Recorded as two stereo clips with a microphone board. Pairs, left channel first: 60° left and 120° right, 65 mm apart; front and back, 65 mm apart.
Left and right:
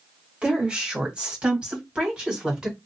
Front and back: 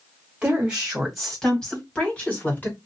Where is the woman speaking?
145° right, 1.5 m; by 2.8 s 50° right, 2 m.